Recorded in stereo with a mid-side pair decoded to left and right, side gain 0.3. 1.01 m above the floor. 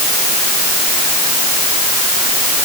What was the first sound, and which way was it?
Only background noise.